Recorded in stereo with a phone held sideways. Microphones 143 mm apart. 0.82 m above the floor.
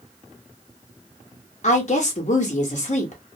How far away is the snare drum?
I don't hear a snare drum.